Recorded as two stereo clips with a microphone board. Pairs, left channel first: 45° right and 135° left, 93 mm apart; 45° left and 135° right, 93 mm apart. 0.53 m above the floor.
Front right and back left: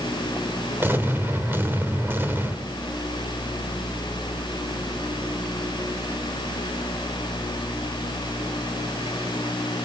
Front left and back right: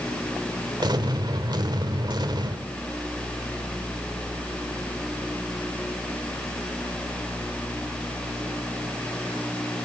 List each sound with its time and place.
0.8 s an explosion: 160° right, 1.8 m